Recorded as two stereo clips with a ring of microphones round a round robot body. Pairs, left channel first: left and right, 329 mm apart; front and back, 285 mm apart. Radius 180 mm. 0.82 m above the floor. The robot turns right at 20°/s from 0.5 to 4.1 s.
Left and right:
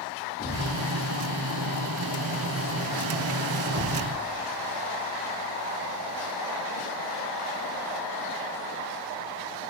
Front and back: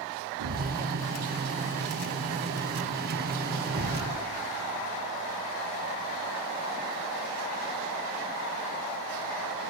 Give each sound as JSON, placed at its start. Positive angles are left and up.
{"t": 0.4, "sound": "a thud", "azimuth_deg": 155, "distance_m": 3.5}